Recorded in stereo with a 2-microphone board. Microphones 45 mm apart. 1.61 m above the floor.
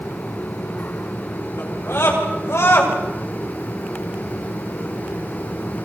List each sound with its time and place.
1.6 s a scream: 75° left (ahead or behind), 7 m; by 2.9 s 80° left, 7.5 m